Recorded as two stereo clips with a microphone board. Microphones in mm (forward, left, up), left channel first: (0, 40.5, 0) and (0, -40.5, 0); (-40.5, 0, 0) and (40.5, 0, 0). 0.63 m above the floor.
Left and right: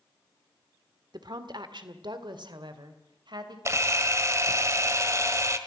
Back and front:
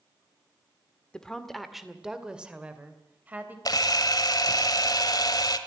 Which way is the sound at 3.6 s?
145° right.